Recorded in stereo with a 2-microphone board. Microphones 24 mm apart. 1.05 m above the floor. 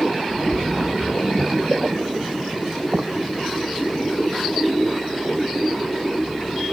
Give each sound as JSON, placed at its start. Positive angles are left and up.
{"t": 0.3, "sound": "a splash", "side_deg": -55, "distance_m": 0.6}